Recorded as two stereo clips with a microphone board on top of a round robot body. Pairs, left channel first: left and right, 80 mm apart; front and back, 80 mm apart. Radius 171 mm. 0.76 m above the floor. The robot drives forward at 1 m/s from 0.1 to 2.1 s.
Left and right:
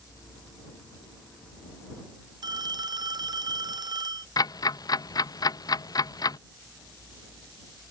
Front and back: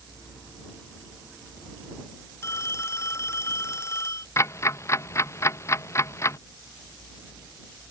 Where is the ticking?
55° left.